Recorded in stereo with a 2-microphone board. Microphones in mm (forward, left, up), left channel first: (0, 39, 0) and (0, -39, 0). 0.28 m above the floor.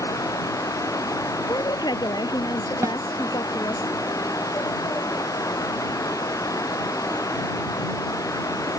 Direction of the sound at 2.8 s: 45° right (ahead or behind).